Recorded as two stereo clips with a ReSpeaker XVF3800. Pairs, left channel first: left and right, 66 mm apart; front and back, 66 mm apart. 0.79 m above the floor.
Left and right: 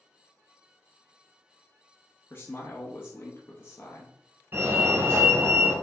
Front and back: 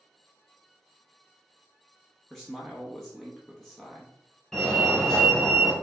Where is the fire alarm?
80° right, 1.8 m.